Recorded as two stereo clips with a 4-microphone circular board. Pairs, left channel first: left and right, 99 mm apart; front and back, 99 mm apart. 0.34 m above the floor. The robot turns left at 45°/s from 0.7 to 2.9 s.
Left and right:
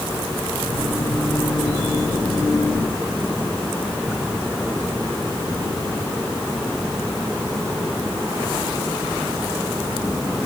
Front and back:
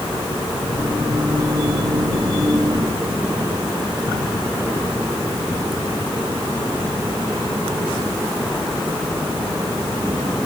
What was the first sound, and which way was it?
Only background noise.